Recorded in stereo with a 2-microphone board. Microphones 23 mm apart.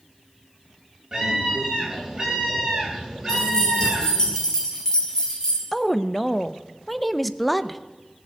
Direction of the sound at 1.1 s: 20° right (ahead or behind).